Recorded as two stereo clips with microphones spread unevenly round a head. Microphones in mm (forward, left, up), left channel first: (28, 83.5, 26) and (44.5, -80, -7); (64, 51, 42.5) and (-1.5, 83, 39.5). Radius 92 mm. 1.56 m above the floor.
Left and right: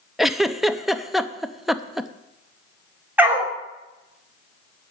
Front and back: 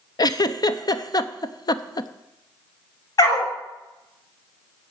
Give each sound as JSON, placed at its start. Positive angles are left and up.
{"t": 0.2, "sound": "a giggle", "azimuth_deg": 5, "distance_m": 0.6}
{"t": 3.2, "sound": "a dog barking", "azimuth_deg": 0, "distance_m": 2.0}